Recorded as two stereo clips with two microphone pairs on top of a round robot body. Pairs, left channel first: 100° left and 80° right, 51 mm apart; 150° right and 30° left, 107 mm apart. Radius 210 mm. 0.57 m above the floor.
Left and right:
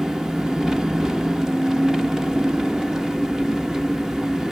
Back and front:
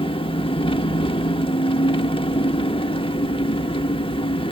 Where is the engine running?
155° right, 1.2 m.